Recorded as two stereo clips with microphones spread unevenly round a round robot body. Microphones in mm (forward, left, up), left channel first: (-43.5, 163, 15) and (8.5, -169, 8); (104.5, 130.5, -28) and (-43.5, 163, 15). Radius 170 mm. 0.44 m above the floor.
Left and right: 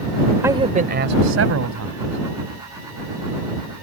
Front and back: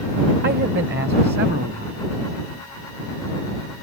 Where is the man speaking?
165° right; by 2.2 s 120° right.